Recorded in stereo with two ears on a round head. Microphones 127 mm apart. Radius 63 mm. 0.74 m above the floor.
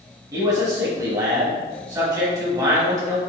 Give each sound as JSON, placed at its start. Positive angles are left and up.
{"t": 0.3, "sound": "a man speaking", "side_deg": -25, "distance_m": 1.1}